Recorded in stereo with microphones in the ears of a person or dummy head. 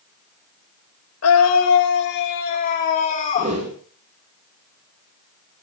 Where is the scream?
80° left, 2.5 m; by 3.5 s 35° left (ahead or behind), 3.5 m.